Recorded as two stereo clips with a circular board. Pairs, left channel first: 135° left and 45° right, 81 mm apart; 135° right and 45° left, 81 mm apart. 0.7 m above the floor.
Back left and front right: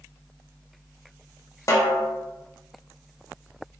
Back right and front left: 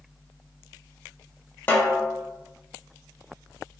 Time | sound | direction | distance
1.7 | a snare drum | 165° left | 0.6 m